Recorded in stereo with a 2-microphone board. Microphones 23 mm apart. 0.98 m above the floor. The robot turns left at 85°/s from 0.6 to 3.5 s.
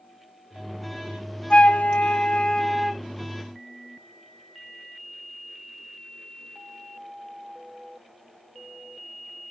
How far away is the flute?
About 0.7 m.